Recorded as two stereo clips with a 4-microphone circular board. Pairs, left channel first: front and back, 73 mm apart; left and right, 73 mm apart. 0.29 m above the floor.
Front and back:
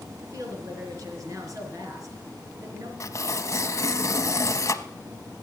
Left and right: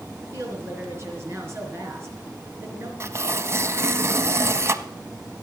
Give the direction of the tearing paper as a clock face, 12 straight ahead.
1 o'clock.